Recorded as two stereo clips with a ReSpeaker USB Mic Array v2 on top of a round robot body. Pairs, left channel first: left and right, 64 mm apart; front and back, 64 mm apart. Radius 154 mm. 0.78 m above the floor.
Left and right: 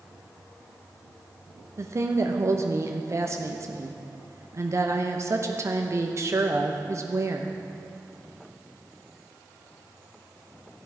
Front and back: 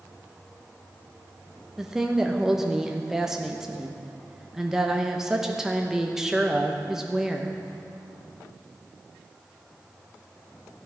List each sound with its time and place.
1.8 s a woman speaking: 100° right, 1.1 m